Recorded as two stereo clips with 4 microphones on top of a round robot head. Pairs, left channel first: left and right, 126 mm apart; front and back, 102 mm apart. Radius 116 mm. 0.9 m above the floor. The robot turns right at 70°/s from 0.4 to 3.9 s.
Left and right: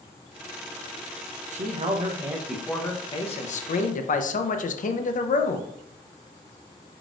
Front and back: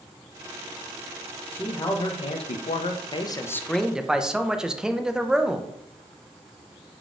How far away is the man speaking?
About 0.5 m.